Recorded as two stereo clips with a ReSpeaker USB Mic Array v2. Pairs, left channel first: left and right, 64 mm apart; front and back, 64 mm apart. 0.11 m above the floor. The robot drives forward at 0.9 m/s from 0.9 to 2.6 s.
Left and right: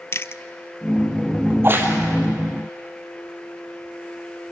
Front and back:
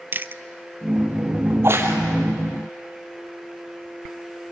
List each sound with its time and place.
0.1 s chewing: 130° left, 0.6 m
1.5 s a crack: 135° right, 2 m; by 2.0 s 145° right, 2.5 m